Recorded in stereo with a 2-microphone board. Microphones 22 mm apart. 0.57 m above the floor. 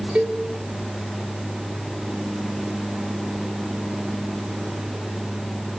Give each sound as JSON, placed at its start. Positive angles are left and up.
{"t": 0.1, "sound": "a cowbell", "side_deg": -60, "distance_m": 6.0}